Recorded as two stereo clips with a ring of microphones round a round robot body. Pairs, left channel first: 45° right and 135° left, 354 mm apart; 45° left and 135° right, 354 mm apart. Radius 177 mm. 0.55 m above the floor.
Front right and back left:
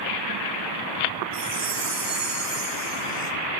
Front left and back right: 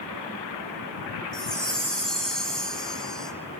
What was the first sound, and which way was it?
A chime, 135° left.